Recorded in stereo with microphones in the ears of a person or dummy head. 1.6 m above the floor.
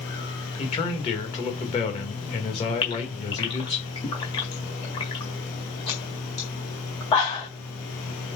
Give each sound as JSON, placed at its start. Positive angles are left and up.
{"t": 0.6, "sound": "a man speaking", "side_deg": 25, "distance_m": 2.0}
{"t": 2.8, "sound": "a gasp", "side_deg": 20, "distance_m": 1.7}